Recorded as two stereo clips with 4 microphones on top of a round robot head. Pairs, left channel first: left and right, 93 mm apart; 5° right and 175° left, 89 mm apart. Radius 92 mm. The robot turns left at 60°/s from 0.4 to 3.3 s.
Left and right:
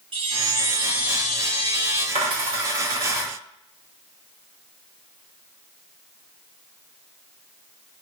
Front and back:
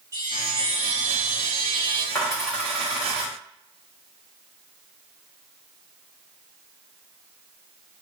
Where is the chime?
120° right, 1.0 m; by 2.0 s 140° left, 1.0 m.